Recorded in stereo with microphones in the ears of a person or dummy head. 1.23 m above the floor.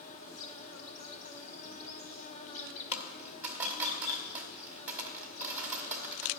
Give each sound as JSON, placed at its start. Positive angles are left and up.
{"t": 0.0, "sound": "an insect", "side_deg": 40, "distance_m": 1.6}
{"t": 2.9, "sound": "a dropped coin", "side_deg": -10, "distance_m": 1.9}